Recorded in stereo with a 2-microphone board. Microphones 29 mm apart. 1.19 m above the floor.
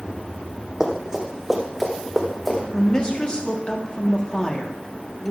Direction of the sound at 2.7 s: 30° left (ahead or behind).